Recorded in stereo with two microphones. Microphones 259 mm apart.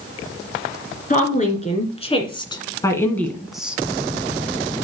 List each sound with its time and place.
1.1 s a woman speaking: 30° left (ahead or behind), 2.5 m; by 3.8 s 5° right (ahead or behind), 1.3 m